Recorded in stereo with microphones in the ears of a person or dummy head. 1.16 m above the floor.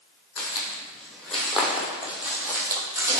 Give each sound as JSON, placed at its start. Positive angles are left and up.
{"t": 0.4, "sound": "footsteps", "side_deg": 10, "distance_m": 3.0}